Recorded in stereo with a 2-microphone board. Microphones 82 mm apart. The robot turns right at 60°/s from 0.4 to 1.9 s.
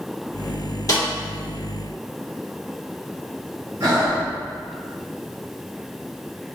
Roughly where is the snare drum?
Left.